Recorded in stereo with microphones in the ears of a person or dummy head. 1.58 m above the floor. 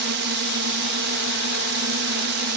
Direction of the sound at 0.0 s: 60° right (ahead or behind).